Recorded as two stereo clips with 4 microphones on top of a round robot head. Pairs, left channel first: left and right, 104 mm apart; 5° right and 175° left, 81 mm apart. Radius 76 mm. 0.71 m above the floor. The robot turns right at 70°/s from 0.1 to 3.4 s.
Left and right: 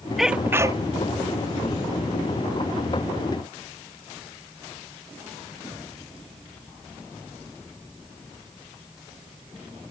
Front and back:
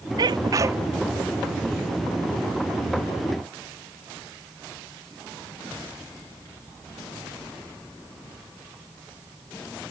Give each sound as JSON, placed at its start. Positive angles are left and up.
{"t": 0.2, "sound": "a sneeze", "azimuth_deg": 180}